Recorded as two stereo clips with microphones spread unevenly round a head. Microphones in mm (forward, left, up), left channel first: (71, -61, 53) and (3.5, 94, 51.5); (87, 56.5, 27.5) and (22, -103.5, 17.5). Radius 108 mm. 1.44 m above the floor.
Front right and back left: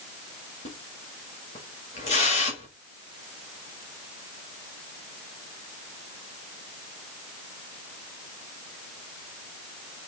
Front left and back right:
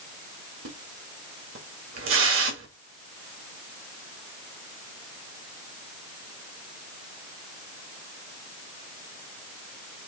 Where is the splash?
125° right, 1.7 m.